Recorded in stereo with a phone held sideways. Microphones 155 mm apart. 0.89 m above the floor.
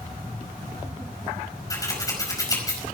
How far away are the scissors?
About 5 m.